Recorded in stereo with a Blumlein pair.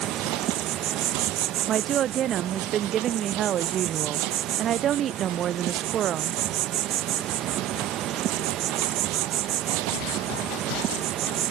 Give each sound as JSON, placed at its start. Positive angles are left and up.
{"t": 0.0, "sound": "an insect", "azimuth_deg": -35}
{"t": 1.7, "sound": "a woman speaking", "azimuth_deg": -30}